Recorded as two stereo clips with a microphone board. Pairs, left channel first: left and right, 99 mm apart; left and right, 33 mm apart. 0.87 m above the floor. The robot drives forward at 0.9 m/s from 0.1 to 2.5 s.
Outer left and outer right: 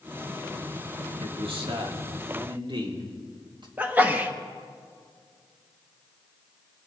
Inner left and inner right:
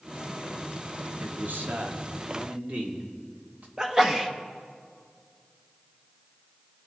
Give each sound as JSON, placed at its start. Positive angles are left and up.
{"t": 1.2, "sound": "a man speaking", "side_deg": -75, "distance_m": 2.0}
{"t": 3.8, "sound": "a sneeze", "side_deg": -15, "distance_m": 1.2}